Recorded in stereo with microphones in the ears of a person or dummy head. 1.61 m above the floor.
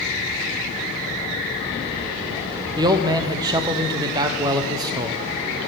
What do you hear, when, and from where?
2.8 s a man speaking: 25° right (ahead or behind), 0.6 m